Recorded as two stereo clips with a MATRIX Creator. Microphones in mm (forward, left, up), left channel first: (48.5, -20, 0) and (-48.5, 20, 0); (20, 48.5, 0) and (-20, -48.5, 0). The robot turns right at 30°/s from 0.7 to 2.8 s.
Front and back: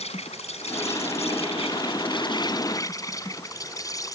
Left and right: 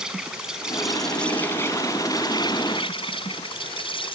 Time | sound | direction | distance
0.0 | an insect | 30° right | ?